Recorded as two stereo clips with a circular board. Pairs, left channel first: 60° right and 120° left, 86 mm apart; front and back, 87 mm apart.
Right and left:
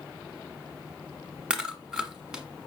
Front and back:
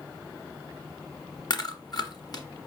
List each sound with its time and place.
1.5 s chewing: 40° left, 1.1 m